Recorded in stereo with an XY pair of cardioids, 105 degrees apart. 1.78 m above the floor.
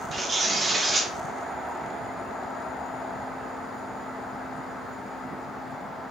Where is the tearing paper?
35° right, 0.7 m.